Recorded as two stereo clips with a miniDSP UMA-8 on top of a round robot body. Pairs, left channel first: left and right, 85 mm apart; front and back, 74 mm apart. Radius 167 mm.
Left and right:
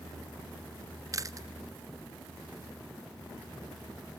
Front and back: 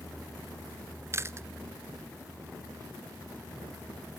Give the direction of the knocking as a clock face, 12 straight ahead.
No knocking in this recording.